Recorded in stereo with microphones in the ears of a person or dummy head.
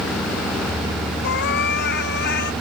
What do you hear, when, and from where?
1.2 s a cat meowing: 60° left (ahead or behind)